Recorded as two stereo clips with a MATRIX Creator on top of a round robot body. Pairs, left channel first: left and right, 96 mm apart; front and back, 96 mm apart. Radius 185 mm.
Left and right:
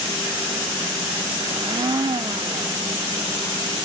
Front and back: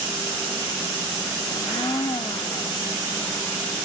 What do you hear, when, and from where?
1.5 s a blender: 40° right, 0.9 m